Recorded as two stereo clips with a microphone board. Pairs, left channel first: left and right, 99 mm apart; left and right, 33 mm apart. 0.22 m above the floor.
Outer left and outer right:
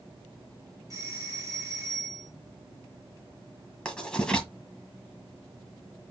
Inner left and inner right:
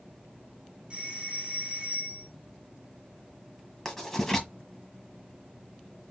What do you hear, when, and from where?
0.9 s a doorbell: 35° right (ahead or behind), 3.5 m
3.9 s writing: 10° left (ahead or behind), 1.5 m